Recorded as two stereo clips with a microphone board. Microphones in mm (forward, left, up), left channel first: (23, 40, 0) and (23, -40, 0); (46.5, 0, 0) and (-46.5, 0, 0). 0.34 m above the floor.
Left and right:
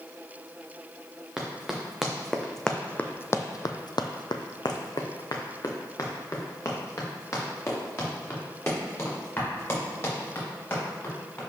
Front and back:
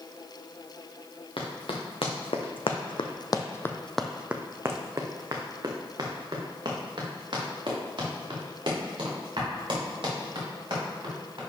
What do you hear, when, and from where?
1.4 s running footsteps: 10° right, 1.9 m; by 11.4 s 150° left, 6 m